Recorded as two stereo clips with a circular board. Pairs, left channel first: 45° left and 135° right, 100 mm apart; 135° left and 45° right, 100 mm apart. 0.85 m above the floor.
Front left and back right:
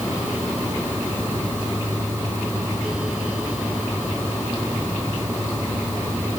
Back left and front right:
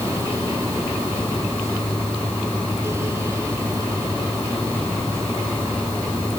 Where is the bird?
I don't hear a bird.